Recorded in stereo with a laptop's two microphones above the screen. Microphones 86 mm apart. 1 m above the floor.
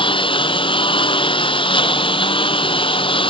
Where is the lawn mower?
70° left (ahead or behind); by 3.3 s 75° left (ahead or behind).